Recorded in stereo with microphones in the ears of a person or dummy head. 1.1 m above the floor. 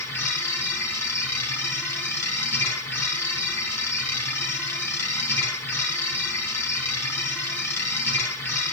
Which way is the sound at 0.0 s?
10° left (ahead or behind).